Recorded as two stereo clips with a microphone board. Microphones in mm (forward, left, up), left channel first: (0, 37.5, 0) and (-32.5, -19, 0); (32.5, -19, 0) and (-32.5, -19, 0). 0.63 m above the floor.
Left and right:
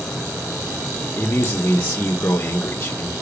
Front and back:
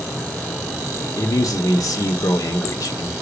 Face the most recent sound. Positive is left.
turn(degrees=10)